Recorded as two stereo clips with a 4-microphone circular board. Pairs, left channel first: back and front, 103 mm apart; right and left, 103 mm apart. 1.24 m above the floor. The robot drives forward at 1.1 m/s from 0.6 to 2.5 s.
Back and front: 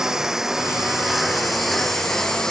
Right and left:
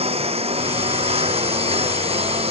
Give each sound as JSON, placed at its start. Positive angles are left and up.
{"t": 0.0, "sound": "a lawn mower", "azimuth_deg": 85}